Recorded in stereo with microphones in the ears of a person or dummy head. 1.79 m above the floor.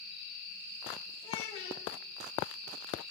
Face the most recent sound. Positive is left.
turn(degrees=25)  # may be behind; listen again after turning